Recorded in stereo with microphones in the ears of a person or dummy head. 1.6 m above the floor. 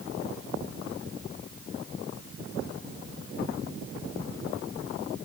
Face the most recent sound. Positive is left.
No sound to turn to.